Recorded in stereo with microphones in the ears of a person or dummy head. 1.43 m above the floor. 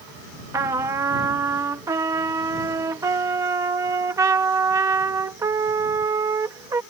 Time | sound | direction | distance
0.5 | a trumpet | 15° right (ahead or behind) | ?